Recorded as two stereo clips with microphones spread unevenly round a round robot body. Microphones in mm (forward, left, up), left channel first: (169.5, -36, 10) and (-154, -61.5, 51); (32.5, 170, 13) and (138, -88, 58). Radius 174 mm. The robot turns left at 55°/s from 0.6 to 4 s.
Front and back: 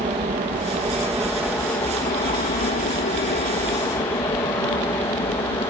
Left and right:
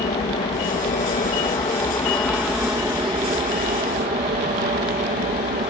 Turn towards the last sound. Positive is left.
turn(degrees=-55)